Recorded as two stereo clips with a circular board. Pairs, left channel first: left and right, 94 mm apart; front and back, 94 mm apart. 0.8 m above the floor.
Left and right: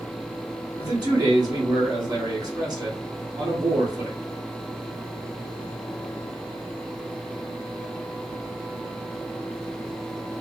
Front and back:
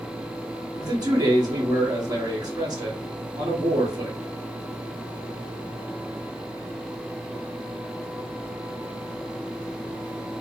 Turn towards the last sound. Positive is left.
turn(degrees=-135)